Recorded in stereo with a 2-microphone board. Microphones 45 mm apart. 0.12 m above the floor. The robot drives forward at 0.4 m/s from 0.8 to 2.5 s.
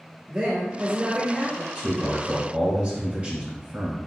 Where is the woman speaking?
35° right (ahead or behind), 1.4 m; by 1.6 s 30° right (ahead or behind), 1.5 m.